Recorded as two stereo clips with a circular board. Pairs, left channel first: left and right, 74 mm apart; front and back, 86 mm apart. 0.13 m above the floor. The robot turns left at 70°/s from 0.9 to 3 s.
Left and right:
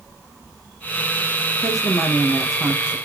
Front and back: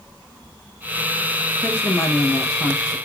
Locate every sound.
1.6 s a woman speaking: 70° left, 2.5 m; by 3.0 s 25° right, 2.5 m